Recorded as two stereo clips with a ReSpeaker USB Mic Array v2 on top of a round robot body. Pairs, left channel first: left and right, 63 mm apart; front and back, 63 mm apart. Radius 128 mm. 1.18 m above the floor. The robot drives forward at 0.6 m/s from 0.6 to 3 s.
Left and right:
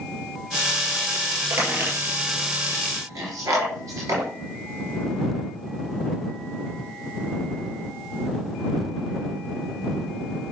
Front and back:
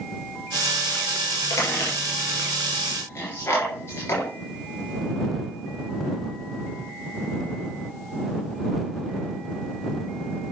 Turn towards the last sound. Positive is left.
turn(degrees=-50)